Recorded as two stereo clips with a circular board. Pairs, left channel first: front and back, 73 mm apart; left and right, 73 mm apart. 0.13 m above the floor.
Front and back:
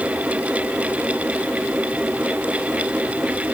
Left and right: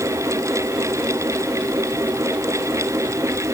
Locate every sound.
Only background noise.